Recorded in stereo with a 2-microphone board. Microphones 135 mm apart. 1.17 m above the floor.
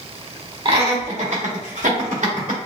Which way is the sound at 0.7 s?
45° right (ahead or behind).